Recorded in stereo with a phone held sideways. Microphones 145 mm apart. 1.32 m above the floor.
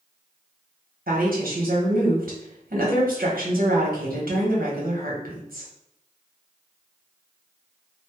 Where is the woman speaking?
85° right, 1.0 m.